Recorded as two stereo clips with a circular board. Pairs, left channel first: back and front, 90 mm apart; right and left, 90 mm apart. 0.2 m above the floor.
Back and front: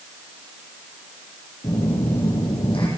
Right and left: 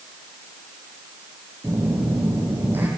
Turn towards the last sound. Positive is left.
turn(degrees=160)